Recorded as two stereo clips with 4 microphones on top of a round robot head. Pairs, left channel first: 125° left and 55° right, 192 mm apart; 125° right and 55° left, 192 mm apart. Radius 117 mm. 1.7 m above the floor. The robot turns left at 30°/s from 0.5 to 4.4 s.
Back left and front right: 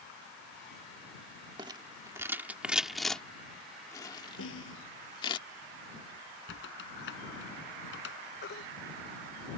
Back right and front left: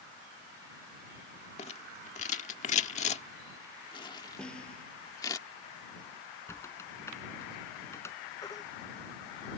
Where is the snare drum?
150° left.